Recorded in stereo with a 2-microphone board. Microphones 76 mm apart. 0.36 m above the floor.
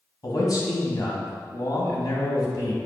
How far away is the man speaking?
About 2 m.